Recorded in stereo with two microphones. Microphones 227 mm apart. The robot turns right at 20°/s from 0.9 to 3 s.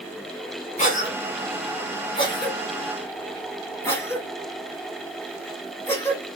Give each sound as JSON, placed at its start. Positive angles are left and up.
{"t": 0.8, "sound": "a cough", "side_deg": 30, "distance_m": 1.1}